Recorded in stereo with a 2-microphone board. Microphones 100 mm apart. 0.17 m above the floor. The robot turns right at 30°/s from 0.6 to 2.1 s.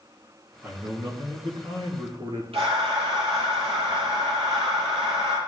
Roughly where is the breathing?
Right.